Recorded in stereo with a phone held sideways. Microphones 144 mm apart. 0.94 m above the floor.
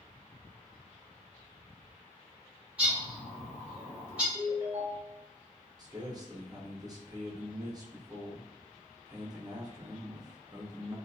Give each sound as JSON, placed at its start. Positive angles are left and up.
{"t": 2.8, "sound": "a bird", "side_deg": -10, "distance_m": 1.2}
{"t": 4.3, "sound": "a ringtone", "side_deg": -20, "distance_m": 1.2}
{"t": 5.8, "sound": "a man speaking", "side_deg": -25, "distance_m": 0.7}